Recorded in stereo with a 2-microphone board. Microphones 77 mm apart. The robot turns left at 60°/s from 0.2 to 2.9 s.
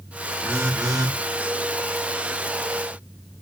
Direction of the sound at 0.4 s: 25° right.